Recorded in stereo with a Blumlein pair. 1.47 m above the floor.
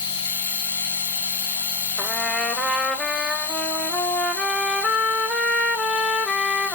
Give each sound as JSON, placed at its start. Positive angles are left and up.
{"t": 0.0, "sound": "a machine running", "azimuth_deg": 65, "distance_m": 1.2}
{"t": 2.0, "sound": "a trumpet", "azimuth_deg": 5, "distance_m": 1.3}